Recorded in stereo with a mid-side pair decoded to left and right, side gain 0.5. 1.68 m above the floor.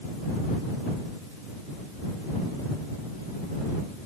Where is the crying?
I don't hear crying.